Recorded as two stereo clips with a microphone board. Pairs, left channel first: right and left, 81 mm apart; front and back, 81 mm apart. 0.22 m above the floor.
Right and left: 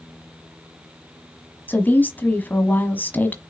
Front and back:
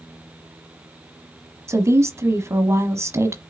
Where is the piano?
I don't hear a piano.